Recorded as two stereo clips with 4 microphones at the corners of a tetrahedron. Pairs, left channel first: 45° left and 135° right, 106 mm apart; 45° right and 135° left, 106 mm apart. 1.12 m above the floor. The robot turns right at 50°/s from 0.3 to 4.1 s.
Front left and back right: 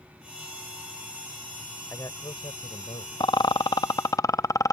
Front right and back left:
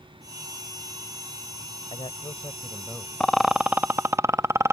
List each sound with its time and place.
1.9 s a man speaking: 20° right; by 3.1 s 40° left
3.2 s a rattle: 35° left; by 4.7 s 80° left